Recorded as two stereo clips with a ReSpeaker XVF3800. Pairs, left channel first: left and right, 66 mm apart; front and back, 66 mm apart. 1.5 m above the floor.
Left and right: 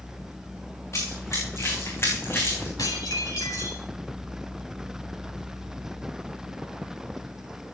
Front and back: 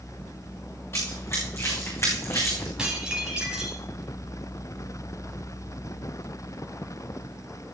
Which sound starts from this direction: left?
Dishes clattering, at 2.8 s.